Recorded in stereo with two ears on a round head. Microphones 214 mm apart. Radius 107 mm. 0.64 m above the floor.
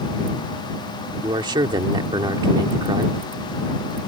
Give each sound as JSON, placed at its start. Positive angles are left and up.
{"t": 1.2, "sound": "a man speaking", "side_deg": -20}